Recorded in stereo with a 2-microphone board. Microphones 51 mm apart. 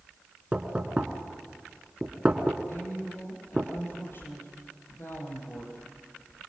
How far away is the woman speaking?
About 7 m.